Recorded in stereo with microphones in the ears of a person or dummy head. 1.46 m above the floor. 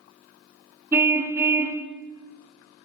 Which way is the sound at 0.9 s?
15° right (ahead or behind).